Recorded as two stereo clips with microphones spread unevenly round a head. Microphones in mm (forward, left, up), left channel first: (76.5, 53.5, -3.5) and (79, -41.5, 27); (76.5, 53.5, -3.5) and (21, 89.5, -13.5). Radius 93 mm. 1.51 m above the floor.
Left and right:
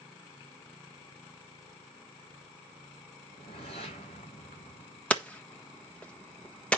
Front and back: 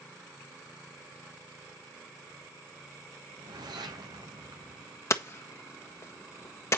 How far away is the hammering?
About 1.4 m.